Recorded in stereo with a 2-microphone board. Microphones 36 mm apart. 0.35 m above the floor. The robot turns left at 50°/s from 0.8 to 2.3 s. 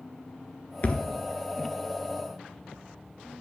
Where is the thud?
50° left (ahead or behind), 0.6 m; by 1.0 s 40° left (ahead or behind), 0.6 m.